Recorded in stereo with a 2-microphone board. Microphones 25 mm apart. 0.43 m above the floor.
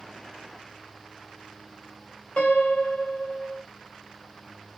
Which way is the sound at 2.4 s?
60° left (ahead or behind).